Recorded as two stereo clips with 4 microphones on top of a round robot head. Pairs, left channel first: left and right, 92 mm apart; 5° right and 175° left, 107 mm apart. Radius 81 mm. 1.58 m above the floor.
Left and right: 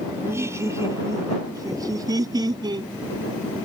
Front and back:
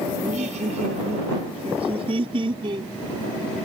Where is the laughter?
150° right; by 2.9 s 130° right.